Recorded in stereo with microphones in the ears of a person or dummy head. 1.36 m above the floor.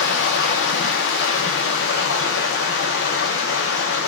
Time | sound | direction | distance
0.0 | running water | 65° left (ahead or behind) | 0.7 m